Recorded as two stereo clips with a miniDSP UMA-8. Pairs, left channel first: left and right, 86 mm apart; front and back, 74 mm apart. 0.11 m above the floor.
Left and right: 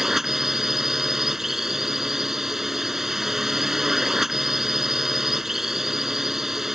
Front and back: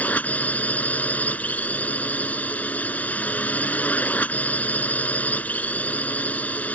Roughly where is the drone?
Ahead.